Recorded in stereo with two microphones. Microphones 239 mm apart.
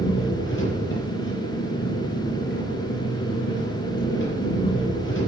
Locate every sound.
0.0 s an engine running: 55° left (ahead or behind), 5.5 m